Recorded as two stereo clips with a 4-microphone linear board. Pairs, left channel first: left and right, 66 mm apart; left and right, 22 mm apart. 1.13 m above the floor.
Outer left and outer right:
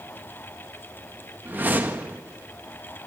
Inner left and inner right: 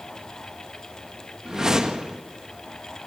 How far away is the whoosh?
About 1.6 m.